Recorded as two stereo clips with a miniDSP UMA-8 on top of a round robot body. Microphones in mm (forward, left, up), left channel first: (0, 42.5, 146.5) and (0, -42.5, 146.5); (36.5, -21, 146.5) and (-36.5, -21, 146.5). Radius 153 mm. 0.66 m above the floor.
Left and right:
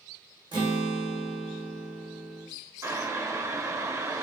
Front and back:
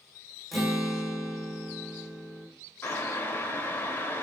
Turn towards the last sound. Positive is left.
turn(degrees=-50)